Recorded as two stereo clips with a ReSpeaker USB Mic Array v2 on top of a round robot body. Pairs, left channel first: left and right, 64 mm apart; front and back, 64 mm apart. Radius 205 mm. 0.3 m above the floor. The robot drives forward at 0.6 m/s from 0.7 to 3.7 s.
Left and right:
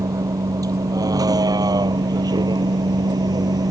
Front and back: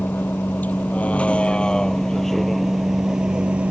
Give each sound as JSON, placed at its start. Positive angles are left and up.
{"t": 0.0, "sound": "a vehicle", "azimuth_deg": -60}